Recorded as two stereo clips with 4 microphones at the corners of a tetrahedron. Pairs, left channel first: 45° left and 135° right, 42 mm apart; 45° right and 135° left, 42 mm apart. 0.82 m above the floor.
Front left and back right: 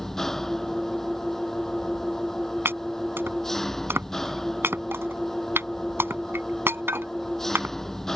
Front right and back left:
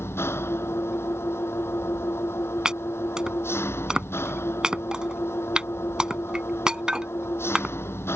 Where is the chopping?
155° right.